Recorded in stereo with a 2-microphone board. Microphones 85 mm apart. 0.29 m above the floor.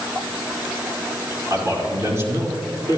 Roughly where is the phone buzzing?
I don't hear a phone buzzing.